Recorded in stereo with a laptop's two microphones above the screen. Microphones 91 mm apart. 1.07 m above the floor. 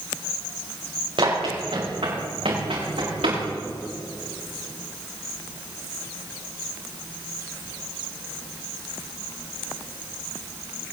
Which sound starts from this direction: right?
Running footsteps, at 1.2 s.